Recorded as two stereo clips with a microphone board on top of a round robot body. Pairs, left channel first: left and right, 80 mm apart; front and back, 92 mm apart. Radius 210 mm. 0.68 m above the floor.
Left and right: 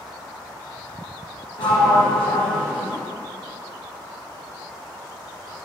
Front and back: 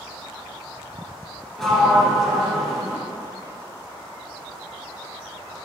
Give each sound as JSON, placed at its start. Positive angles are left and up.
{"t": 1.6, "sound": "a sliding door", "azimuth_deg": 85, "distance_m": 1.9}